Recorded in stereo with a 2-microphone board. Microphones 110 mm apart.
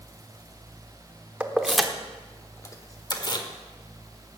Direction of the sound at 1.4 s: 15° right (ahead or behind).